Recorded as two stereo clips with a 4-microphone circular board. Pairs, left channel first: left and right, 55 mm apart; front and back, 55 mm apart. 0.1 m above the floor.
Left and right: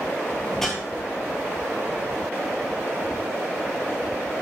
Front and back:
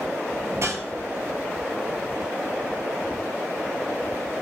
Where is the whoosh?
175° left, 0.5 m.